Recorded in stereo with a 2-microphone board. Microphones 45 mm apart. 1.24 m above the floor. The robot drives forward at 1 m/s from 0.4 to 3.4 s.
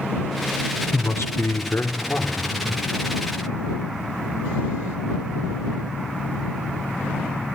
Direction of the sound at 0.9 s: 60° left (ahead or behind).